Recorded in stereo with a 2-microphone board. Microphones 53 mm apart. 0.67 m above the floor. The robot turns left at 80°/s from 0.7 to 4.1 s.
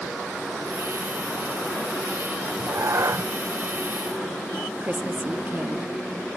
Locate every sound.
2.4 s a cat meowing: 40° right, 0.6 m; by 3.3 s 110° right, 0.6 m
4.8 s a woman speaking: 30° right (ahead or behind), 0.7 m